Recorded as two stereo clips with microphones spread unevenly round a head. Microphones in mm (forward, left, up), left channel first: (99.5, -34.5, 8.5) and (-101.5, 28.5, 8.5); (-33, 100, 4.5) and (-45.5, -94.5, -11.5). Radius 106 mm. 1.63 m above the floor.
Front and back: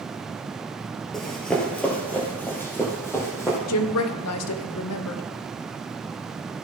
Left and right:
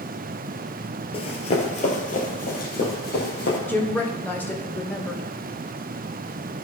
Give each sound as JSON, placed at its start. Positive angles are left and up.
{"t": 1.1, "sound": "running footsteps", "azimuth_deg": 70, "distance_m": 1.8}
{"t": 3.7, "sound": "a woman speaking", "azimuth_deg": 5, "distance_m": 0.8}